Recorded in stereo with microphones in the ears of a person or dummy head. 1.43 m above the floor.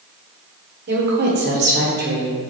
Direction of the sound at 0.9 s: 50° right (ahead or behind).